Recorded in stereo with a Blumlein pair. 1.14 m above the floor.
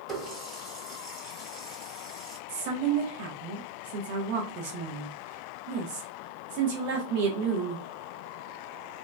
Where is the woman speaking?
45° right, 1.0 m.